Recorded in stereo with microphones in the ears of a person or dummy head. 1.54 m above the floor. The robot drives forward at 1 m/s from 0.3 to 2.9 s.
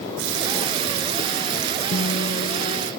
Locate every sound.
0.2 s a running tap: 70° right (ahead or behind); by 2.9 s 45° right (ahead or behind)
1.9 s a guitar: 50° left (ahead or behind); by 2.9 s 40° left (ahead or behind)